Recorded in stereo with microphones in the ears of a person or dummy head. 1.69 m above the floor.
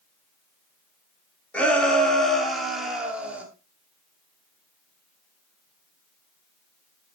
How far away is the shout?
About 5.5 m.